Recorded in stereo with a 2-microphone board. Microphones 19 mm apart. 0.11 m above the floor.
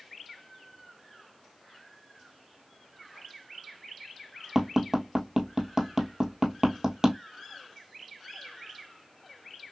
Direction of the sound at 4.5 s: 35° right (ahead or behind).